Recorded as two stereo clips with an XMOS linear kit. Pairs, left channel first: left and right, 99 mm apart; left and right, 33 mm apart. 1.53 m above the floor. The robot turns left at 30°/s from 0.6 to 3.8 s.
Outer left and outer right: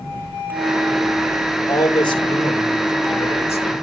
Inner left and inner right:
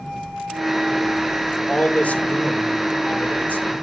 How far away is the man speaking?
About 2 m.